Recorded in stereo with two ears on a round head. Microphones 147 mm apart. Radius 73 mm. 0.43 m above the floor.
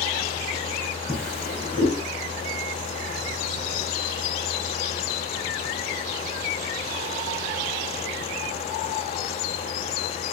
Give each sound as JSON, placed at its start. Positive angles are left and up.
{"t": 1.1, "sound": "a drawer", "side_deg": 5, "distance_m": 3.0}